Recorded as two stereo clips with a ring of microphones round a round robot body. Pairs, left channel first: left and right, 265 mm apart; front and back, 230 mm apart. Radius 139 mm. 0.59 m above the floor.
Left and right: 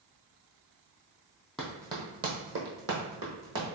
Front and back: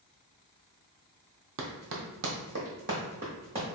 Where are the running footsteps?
Straight behind, 0.9 m; by 3.6 s 110° right, 1.4 m.